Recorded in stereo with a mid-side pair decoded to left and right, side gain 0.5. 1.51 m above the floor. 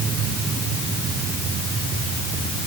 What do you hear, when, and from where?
Only background noise.